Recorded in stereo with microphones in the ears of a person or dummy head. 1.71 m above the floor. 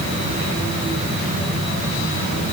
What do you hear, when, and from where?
Only background noise.